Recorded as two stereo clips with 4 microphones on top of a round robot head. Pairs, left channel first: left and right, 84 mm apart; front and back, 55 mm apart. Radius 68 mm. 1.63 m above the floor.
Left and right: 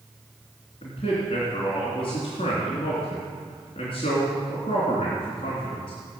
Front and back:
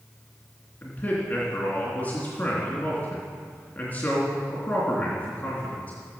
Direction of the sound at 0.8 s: 60° left.